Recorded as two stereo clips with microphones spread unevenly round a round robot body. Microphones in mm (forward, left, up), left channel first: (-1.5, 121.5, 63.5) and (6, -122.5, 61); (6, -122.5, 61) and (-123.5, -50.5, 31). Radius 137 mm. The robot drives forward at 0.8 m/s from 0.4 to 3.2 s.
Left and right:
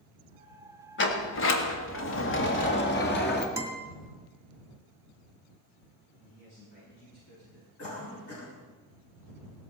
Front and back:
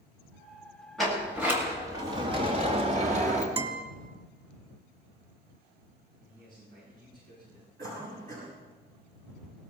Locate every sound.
1.0 s a sliding door: 65° left, 1.7 m; by 3.5 s 135° left, 2 m
3.6 s a guitar: 165° right, 2.5 m
6.2 s a man speaking: 105° left, 10 m
7.8 s a cough: 120° left, 6.5 m